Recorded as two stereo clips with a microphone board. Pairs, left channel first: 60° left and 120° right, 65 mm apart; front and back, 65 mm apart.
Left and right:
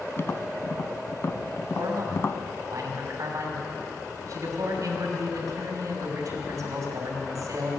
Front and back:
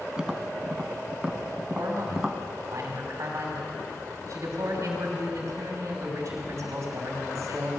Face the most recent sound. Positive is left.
turn(degrees=-145)